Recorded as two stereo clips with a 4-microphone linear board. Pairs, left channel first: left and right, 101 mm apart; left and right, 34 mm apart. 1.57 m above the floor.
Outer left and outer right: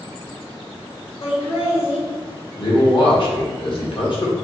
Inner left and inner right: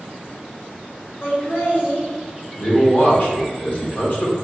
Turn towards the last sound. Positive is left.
turn(degrees=55)  # may be behind; listen again after turning